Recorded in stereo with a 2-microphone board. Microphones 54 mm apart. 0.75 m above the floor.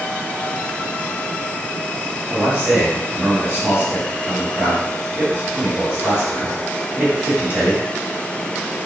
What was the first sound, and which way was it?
A man speaking, 20° right (ahead or behind).